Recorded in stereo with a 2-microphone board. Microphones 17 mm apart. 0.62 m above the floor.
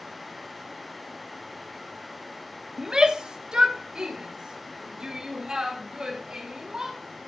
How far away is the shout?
About 1.0 m.